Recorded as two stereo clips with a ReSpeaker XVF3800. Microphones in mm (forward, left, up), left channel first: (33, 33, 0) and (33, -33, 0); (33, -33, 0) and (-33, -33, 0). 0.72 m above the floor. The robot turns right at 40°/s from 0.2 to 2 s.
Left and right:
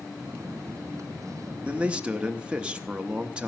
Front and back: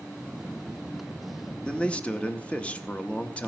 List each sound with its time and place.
1.6 s a man speaking: 55° right, 0.7 m; by 3.5 s 45° right, 0.7 m